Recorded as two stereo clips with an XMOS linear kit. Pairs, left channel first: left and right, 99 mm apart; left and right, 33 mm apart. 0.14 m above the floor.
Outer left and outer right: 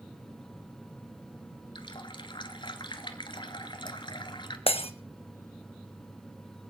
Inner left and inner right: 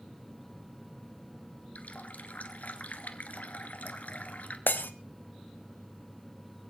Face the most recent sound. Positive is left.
turn(degrees=75)  # may be behind; listen again after turning